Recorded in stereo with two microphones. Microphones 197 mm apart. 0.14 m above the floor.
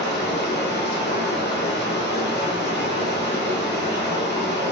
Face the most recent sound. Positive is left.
turn(degrees=60)  # may be behind; listen again after turning